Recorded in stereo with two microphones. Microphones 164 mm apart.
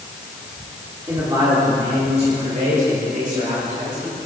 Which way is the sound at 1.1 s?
20° right (ahead or behind).